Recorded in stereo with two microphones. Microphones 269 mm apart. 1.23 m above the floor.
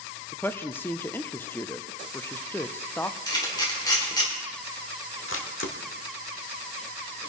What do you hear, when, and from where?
0.3 s a woman speaking: 10° left (ahead or behind), 0.6 m
3.3 s a camera shutter: 15° left (ahead or behind), 2.5 m
5.3 s a camera shutter: 55° left (ahead or behind), 1.4 m